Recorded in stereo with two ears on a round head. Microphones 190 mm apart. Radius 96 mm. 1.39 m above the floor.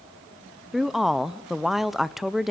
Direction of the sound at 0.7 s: Centre (ahead or behind).